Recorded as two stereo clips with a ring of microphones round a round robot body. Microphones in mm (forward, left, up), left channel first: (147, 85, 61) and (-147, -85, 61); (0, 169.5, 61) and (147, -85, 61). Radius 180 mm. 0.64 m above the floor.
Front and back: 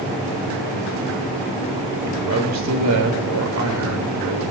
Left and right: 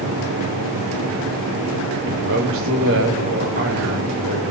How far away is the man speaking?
About 4 m.